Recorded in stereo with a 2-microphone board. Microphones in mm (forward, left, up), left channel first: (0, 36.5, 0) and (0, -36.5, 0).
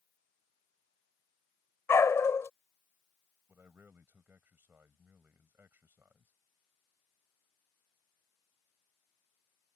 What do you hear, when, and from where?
1.9 s a dog barking: 40° left (ahead or behind)
3.5 s a man speaking: 25° right (ahead or behind)